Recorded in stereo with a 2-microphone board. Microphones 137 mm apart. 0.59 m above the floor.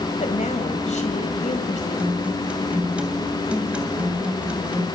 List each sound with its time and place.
0.2 s a woman speaking: 60° left (ahead or behind), 2.5 m
2.0 s a guitar: 10° right (ahead or behind), 2.5 m